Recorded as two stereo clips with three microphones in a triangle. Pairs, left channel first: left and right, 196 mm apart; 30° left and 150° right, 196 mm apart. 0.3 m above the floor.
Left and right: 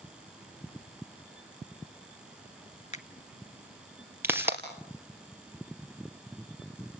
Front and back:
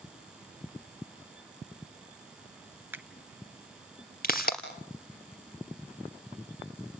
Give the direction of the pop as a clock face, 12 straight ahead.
12 o'clock.